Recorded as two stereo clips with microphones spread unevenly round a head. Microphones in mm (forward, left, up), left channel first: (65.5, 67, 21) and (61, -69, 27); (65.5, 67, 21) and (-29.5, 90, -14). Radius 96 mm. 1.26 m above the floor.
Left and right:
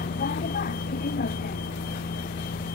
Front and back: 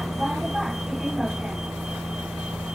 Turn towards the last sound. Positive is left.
turn(degrees=80)